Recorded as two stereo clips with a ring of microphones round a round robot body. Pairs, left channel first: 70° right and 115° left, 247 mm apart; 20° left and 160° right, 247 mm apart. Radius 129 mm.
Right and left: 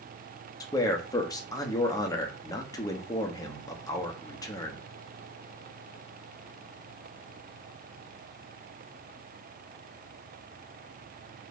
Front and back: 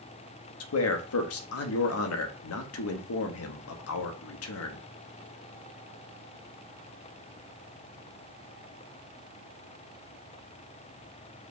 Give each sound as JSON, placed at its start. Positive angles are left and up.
{"t": 0.6, "sound": "a man speaking", "azimuth_deg": 5, "distance_m": 0.9}